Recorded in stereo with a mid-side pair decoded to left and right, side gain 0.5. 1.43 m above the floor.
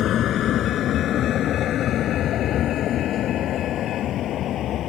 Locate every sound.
0.0 s a vehicle: 55° left; by 4.9 s 60° left